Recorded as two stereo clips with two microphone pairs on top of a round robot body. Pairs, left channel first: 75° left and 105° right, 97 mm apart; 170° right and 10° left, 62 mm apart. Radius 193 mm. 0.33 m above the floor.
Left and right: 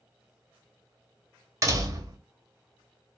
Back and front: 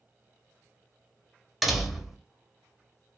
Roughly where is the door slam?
Ahead right.